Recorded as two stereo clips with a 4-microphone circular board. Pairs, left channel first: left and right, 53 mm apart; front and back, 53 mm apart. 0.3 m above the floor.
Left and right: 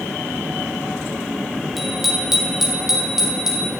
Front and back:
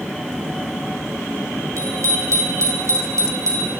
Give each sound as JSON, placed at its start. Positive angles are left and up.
{"t": 1.8, "sound": "a bicycle bell", "azimuth_deg": 180, "distance_m": 6.5}